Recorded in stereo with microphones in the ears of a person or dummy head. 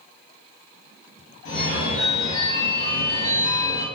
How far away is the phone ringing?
About 0.9 m.